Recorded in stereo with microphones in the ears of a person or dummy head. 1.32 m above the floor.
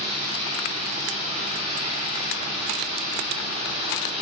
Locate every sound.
0.0 s running water: 40° right (ahead or behind), 3 m